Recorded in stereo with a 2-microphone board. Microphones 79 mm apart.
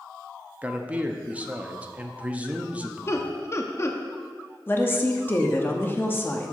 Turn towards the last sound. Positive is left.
turn(degrees=25)  # may be behind; listen again after turning